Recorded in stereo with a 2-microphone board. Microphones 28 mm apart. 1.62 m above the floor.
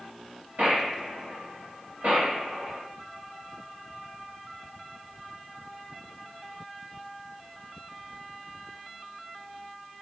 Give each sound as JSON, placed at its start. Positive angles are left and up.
{"t": 0.6, "sound": "a gunshot", "side_deg": -65, "distance_m": 2.0}